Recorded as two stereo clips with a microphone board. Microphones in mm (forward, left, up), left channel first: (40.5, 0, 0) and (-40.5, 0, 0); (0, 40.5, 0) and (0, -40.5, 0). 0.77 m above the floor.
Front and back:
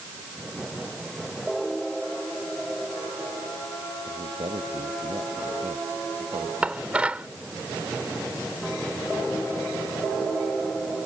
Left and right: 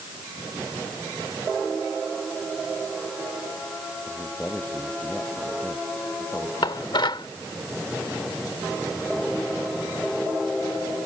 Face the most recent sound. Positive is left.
turn(degrees=105)